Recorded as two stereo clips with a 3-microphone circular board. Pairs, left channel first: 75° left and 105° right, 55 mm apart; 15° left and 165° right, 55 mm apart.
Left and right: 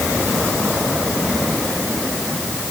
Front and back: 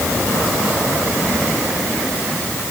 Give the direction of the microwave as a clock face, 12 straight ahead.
I don't hear a microwave.